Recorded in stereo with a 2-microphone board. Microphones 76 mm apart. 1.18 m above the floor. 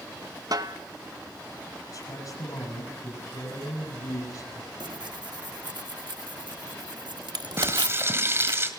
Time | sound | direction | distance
0.5 | a snare drum | 55° right (ahead or behind) | 1.1 m
1.9 | a man speaking | 50° left (ahead or behind) | 8.5 m
4.8 | tearing paper | 75° right (ahead or behind) | 1.6 m
7.6 | frying | 35° right (ahead or behind) | 2.5 m